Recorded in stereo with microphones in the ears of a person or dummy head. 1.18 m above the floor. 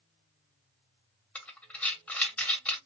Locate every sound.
1.4 s breathing: 10° left (ahead or behind), 1.1 m